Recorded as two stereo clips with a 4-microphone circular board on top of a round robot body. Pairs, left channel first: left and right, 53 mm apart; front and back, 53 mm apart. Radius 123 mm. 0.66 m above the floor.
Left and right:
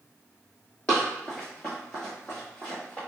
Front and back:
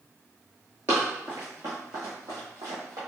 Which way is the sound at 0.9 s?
155° left.